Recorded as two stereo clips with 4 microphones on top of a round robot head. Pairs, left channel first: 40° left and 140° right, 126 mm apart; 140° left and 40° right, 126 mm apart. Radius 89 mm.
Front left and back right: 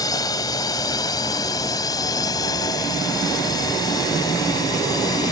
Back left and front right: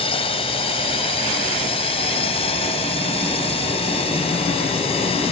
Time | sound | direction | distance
0.0 | a drone | 100° left | ?